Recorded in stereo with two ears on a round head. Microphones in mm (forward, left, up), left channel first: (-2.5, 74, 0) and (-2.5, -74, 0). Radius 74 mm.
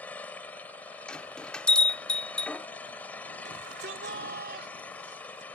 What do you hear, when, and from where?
0.0 s an engine running: 10° left (ahead or behind)
1.1 s a bell: 5° left (ahead or behind)
3.5 s a shout: 70° right (ahead or behind)